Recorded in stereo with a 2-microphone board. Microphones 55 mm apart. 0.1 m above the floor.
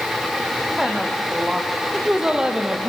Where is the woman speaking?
5° right (ahead or behind), 4 m; by 2.9 s 15° right (ahead or behind), 2 m.